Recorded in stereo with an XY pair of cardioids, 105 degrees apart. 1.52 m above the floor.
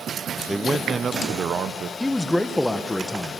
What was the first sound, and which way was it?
A man speaking, straight ahead.